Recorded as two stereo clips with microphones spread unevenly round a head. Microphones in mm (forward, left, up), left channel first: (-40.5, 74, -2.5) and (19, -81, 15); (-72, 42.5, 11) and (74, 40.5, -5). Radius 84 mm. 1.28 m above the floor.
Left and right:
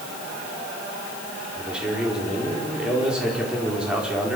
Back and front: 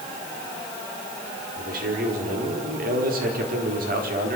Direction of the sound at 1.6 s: 15° left.